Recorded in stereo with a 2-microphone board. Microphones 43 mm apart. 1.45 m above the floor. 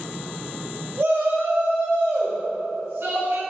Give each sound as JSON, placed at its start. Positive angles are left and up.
{"t": 1.0, "sound": "a shout", "side_deg": -70, "distance_m": 1.6}